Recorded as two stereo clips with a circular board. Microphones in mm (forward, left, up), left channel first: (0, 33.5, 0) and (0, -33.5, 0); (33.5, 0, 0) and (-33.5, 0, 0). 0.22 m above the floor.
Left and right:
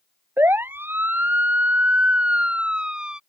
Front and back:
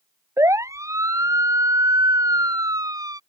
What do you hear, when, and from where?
0.4 s a siren: 145° right; by 3.2 s 170° right